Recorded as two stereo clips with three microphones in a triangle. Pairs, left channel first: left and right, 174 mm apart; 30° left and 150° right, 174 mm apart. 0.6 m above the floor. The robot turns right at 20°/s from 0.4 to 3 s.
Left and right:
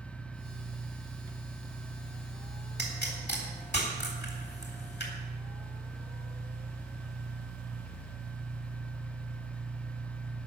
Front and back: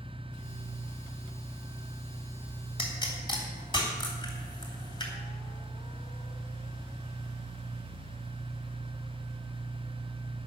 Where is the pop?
90° left, 3 m; by 5.1 s 95° left, 3 m.